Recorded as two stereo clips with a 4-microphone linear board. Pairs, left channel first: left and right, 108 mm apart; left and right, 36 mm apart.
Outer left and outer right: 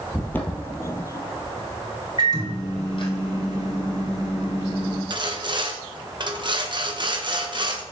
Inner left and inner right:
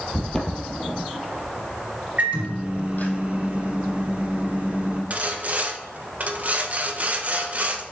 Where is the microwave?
45° right (ahead or behind), 3 m.